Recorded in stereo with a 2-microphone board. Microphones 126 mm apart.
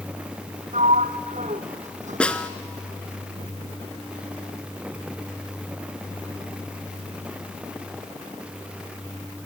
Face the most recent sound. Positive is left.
turn(degrees=10)  # may be behind; listen again after turning